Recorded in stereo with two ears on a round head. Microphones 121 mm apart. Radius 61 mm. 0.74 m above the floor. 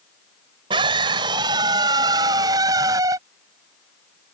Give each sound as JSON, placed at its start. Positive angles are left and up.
{"t": 0.7, "sound": "a scream", "side_deg": -35}